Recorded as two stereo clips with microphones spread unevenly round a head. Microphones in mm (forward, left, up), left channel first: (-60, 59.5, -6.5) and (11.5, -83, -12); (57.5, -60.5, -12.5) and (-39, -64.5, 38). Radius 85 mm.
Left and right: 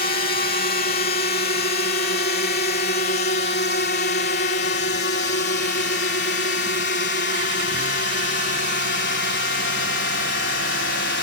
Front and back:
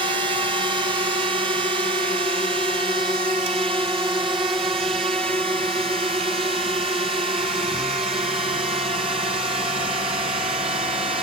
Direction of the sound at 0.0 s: 115° left.